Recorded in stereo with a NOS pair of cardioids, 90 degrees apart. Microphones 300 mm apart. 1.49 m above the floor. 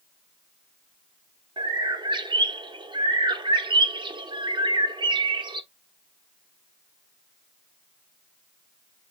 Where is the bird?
15° right, 0.7 m.